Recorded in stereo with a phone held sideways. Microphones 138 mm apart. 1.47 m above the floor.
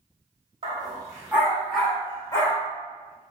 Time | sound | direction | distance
0.6 | a dog barking | 40° right (ahead or behind) | 1.4 m